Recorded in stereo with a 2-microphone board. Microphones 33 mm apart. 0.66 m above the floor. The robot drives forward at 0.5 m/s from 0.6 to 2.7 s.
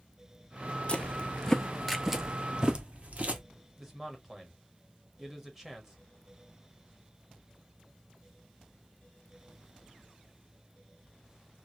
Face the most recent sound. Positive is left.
turn(degrees=-15)  # may be behind; listen again after turning